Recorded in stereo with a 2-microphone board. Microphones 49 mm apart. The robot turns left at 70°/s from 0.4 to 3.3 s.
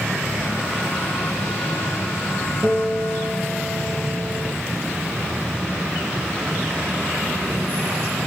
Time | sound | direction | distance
2.6 | a guitar | 150° right | 2.5 m